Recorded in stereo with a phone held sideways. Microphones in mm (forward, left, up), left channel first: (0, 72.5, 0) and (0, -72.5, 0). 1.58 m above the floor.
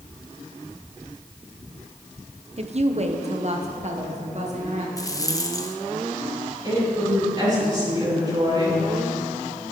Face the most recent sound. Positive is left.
turn(degrees=-30)  # may be behind; listen again after turning